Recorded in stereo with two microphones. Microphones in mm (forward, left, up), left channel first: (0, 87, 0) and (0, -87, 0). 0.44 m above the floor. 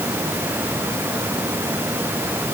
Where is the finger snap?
I don't hear a finger snap.